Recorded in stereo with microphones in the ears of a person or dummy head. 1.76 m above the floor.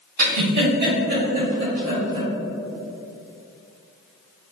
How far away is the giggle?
About 1.8 m.